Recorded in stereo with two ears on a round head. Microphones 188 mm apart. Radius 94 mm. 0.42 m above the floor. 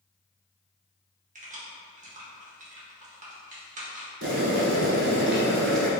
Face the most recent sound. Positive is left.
turn(degrees=-55)  # may be behind; listen again after turning